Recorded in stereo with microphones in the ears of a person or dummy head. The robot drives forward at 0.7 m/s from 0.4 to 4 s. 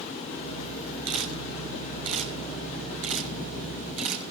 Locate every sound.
1.1 s a camera shutter: 75° right (ahead or behind), 6.5 m; by 4.3 s 60° right (ahead or behind), 7 m